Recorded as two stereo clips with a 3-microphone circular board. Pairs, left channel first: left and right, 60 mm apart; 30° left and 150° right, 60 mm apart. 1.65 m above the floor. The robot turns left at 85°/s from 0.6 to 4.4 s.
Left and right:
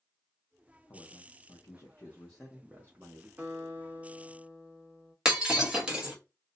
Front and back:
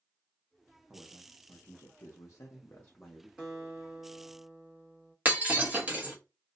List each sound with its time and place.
0.9 s a man speaking: 130° left, 0.6 m; by 3.3 s 70° right, 0.6 m
3.4 s a guitar: 50° right, 1.7 m; by 5.2 s 140° right, 1.7 m
5.2 s breaking glass: 150° right, 1.0 m